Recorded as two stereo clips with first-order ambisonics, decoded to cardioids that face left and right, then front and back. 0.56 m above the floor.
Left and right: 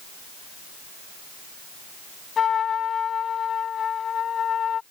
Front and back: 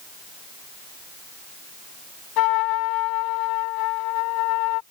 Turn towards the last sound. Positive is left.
turn(degrees=25)